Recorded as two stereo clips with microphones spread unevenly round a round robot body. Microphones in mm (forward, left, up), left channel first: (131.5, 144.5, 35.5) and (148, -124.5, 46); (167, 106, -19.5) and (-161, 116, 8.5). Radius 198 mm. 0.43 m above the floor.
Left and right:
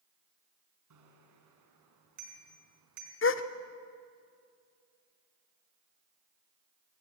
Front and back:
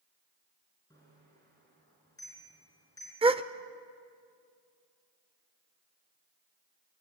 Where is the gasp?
105° left, 1.0 m.